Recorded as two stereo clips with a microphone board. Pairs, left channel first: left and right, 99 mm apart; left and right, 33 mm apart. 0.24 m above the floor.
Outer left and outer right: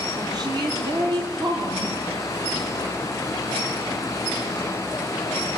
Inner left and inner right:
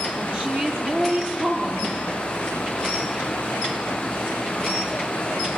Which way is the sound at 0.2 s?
40° right (ahead or behind).